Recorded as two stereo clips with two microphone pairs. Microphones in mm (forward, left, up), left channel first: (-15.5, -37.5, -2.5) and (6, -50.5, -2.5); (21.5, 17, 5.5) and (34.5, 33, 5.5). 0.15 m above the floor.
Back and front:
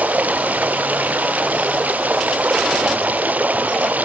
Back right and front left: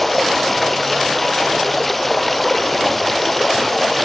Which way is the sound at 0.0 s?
40° right.